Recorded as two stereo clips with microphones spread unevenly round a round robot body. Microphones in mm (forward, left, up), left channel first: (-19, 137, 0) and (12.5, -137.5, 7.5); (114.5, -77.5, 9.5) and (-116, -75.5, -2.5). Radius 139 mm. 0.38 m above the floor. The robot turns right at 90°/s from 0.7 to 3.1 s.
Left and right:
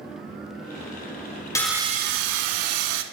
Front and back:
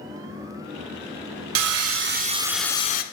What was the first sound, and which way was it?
Sawing, 175° left.